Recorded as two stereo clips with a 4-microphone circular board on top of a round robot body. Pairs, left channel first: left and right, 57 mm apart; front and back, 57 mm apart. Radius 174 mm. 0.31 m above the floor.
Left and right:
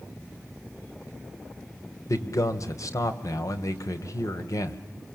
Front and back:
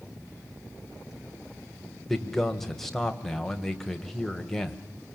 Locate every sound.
2.1 s a man speaking: 85° left, 2.5 m